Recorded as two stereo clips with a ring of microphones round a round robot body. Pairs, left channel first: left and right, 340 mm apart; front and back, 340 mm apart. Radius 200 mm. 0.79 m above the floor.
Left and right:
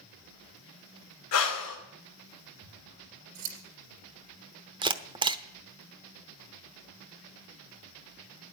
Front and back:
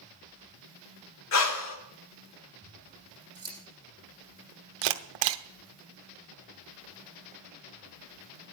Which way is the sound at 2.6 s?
100° right.